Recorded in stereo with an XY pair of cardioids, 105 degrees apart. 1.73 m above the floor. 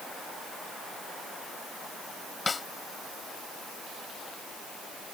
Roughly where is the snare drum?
Ahead left.